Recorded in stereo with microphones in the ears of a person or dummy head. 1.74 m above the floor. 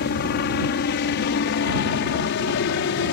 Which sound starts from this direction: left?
A helicopter, at 0.0 s.